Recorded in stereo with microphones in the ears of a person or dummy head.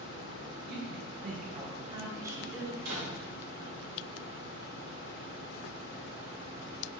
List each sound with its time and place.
0.7 s a woman speaking: 65° right (ahead or behind), 1.3 m; by 2.6 s 15° right (ahead or behind), 1.6 m
2.8 s a door slam: 75° right (ahead or behind), 3.5 m